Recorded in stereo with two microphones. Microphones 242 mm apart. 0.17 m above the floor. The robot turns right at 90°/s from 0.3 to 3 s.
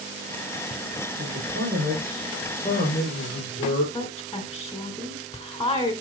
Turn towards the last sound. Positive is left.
turn(degrees=10)  # may be behind; listen again after turning